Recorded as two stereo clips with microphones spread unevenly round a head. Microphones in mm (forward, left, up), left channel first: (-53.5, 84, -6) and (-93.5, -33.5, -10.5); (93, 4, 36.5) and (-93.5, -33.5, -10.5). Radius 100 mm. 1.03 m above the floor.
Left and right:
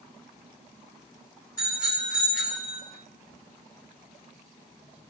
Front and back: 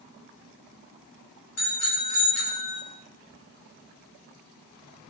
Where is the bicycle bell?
5° right, 7 m; by 2.8 s 5° left, 6.5 m.